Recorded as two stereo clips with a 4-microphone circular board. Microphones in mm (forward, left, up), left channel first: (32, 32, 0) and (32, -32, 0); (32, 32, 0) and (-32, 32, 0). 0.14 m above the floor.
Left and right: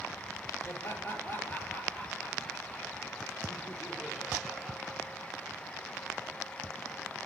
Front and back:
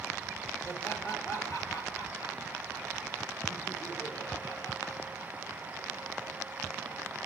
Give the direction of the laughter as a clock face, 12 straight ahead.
11 o'clock.